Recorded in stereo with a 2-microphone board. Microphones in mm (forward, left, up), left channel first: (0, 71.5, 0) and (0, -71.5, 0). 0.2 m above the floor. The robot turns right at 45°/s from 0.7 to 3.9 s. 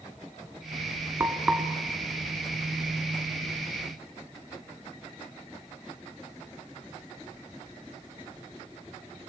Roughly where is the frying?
Centre.